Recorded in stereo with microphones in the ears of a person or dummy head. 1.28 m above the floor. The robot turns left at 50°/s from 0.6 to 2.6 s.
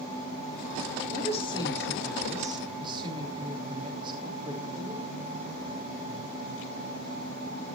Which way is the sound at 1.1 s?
50° left.